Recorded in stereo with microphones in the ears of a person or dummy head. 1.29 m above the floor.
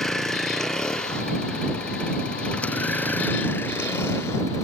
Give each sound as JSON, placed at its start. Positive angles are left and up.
{"t": 0.0, "sound": "a vehicle", "side_deg": 0}